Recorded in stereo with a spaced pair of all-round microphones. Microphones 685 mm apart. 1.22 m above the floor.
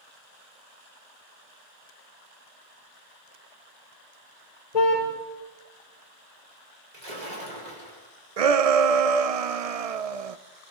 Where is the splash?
80° right, 4.5 m.